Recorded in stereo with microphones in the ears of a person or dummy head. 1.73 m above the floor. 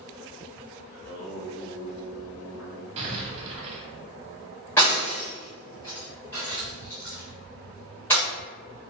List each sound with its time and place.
0.9 s singing: 80° left, 1.9 m
3.0 s an explosion: 35° right (ahead or behind), 1.1 m
4.8 s breaking glass: 10° left (ahead or behind), 1.3 m